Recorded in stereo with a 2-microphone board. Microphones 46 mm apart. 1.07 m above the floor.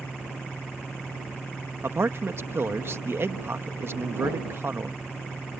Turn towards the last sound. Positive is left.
turn(degrees=-55)  # may be behind; listen again after turning